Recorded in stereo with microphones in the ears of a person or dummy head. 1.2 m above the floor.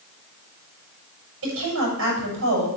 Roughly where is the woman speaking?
Right.